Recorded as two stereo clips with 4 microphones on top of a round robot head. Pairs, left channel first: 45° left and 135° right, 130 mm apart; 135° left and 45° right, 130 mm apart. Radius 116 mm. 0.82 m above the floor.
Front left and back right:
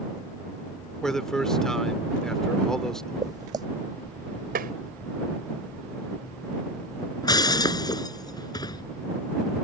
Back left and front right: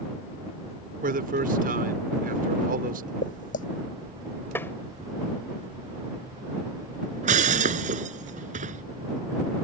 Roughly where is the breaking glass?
Ahead.